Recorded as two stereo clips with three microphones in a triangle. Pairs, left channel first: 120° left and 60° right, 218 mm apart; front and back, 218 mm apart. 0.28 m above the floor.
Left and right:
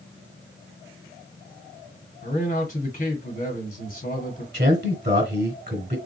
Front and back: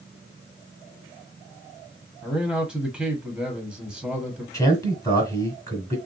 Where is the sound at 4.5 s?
70° right, 1.3 m.